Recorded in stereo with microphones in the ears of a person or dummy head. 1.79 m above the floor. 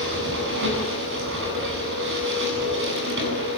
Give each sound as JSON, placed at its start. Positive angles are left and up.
{"t": 0.0, "sound": "a machine running", "side_deg": -65, "distance_m": 9.5}